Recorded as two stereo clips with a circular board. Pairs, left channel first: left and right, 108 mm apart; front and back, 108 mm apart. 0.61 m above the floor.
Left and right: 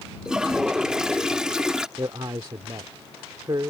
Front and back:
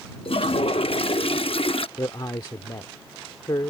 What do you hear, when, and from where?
0.2 s a toilet flushing: 5° right
2.0 s a man speaking: 45° right